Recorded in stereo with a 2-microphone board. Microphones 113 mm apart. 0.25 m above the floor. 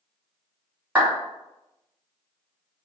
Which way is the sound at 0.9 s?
10° right (ahead or behind).